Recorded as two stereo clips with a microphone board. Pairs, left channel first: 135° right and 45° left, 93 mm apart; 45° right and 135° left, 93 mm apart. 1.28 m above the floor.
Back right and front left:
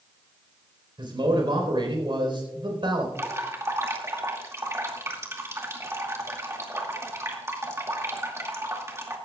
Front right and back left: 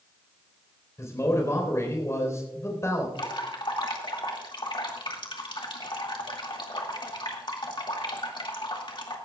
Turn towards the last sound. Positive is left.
turn(degrees=-15)